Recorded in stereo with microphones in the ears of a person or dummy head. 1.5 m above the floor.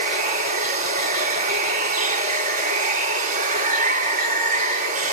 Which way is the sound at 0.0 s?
40° right (ahead or behind).